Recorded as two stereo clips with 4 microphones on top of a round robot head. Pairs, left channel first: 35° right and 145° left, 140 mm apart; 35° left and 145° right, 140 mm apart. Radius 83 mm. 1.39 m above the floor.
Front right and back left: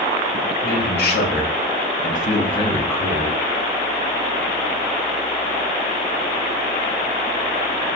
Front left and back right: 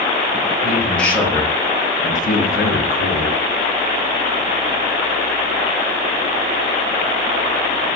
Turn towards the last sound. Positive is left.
turn(degrees=50)